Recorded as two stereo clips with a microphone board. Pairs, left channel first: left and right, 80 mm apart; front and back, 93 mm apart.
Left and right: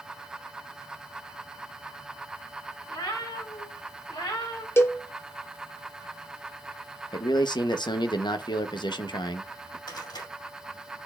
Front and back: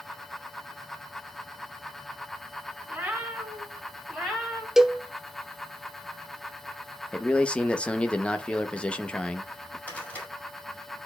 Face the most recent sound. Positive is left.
turn(degrees=70)